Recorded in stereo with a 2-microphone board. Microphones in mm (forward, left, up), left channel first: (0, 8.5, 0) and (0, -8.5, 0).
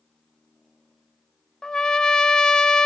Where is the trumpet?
45° left (ahead or behind), 0.5 m.